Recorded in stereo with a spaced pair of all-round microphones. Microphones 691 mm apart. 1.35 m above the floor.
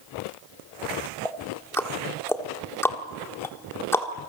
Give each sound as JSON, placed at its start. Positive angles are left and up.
{"t": 1.2, "sound": "ticking", "side_deg": 5, "distance_m": 1.7}